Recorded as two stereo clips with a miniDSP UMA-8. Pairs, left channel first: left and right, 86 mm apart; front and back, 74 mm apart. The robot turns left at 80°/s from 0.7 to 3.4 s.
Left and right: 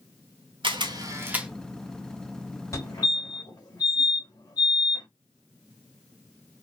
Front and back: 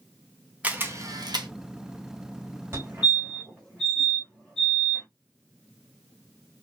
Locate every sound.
0.6 s a camera shutter: 110° right, 0.9 m; by 1.5 s 170° right, 0.9 m
2.7 s a fire alarm: 135° left, 2.5 m; by 5.1 s 80° left, 2.5 m